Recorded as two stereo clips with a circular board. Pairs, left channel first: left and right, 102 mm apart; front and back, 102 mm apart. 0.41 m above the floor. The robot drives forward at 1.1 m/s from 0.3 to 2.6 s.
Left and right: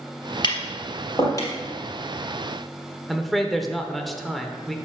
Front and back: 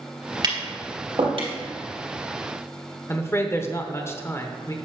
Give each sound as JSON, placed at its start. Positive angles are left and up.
{"t": 0.4, "sound": "tapping", "azimuth_deg": 130, "distance_m": 2.0}
{"t": 3.1, "sound": "a man speaking", "azimuth_deg": 0, "distance_m": 0.8}